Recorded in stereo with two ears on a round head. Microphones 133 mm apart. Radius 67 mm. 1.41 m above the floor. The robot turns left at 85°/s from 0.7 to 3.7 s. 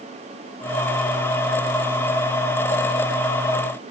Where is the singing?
No singing in this recording.